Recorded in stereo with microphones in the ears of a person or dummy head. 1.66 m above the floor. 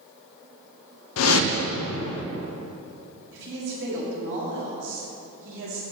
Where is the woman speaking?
65° right (ahead or behind), 1.8 m.